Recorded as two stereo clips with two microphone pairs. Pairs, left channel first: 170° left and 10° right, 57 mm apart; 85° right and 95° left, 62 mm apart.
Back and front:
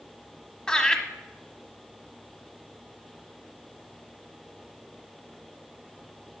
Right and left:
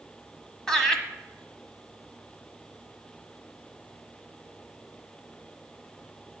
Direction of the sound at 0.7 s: 145° right.